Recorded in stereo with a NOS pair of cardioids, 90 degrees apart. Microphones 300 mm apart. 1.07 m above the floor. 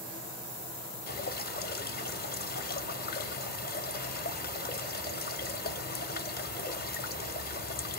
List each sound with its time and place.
1.1 s dripping: 30° left, 0.8 m